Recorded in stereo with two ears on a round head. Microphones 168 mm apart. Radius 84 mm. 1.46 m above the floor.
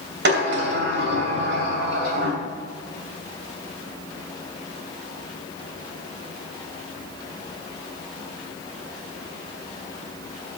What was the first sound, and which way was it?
A sliding door, 60° right (ahead or behind).